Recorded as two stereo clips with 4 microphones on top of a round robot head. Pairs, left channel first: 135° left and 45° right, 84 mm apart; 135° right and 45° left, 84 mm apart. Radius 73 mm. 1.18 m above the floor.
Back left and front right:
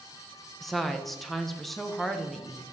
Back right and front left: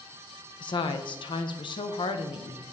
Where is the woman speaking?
135° right, 0.7 m.